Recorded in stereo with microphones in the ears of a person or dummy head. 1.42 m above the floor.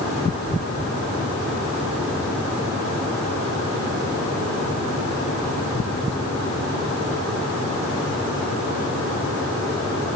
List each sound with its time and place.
Only background noise.